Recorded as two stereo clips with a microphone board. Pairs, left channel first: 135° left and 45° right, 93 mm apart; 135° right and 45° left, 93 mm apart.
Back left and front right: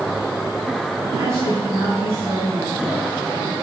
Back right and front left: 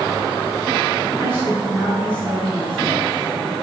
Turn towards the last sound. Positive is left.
turn(degrees=-90)